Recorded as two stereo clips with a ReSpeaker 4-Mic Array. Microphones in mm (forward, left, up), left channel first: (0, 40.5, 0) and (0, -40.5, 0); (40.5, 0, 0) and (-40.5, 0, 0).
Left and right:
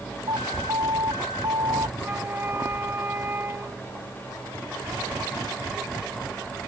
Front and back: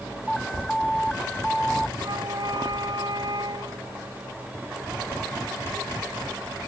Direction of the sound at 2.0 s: 155° right.